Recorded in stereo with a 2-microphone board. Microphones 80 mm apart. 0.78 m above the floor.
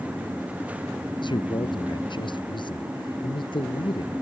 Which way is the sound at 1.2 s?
75° left (ahead or behind).